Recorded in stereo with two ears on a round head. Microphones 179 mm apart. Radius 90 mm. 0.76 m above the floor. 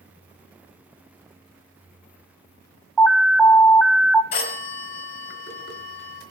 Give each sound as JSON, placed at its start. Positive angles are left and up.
{"t": 3.0, "sound": "an alarm", "side_deg": 5, "distance_m": 0.8}
{"t": 4.3, "sound": "a phone ringing", "side_deg": 55, "distance_m": 2.5}